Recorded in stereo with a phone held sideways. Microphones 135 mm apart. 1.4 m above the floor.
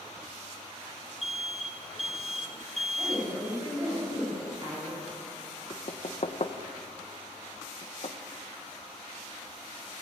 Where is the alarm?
Centre (ahead or behind), 1.4 m.